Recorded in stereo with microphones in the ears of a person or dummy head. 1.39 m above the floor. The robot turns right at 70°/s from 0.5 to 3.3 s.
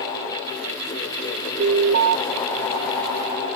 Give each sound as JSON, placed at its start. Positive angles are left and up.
{"t": 1.6, "sound": "an alarm", "azimuth_deg": -135}